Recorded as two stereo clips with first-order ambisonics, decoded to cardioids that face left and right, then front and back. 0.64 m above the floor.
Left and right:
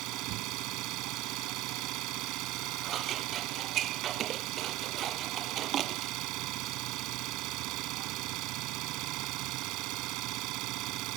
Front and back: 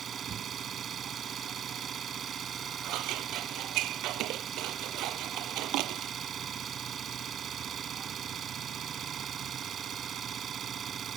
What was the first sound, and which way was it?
An engine running, 120° right.